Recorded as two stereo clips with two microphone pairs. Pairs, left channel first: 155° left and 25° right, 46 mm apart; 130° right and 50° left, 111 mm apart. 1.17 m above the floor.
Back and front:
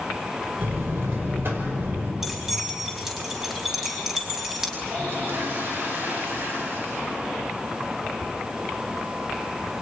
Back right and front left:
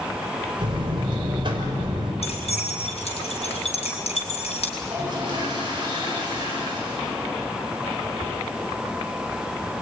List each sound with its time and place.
0.6 s a buzzer: 5° left, 5.5 m
2.2 s keys jangling: 110° right, 5.5 m
4.8 s a toilet flushing: straight ahead, 10 m